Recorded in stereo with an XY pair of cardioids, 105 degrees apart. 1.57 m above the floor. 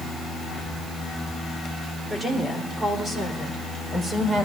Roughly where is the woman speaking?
Ahead.